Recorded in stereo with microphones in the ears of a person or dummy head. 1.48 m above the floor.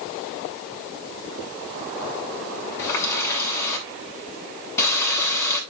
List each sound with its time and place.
2.8 s a running tap: 15° left (ahead or behind), 7.5 m